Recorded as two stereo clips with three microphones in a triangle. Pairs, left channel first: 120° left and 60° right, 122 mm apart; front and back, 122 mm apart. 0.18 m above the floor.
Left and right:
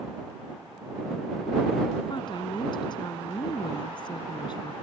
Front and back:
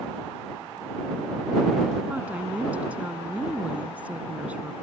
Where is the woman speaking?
110° left.